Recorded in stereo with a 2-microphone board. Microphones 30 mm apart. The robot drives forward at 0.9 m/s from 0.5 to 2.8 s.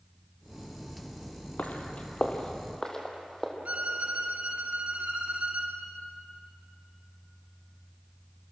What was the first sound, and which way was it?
Footsteps, 55° left (ahead or behind).